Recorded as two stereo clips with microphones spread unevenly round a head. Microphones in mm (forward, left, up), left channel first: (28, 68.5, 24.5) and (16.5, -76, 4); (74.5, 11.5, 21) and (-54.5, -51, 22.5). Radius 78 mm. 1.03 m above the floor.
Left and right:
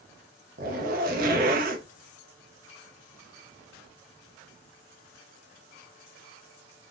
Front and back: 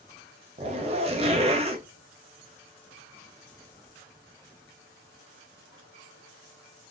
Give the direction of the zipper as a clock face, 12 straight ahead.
4 o'clock.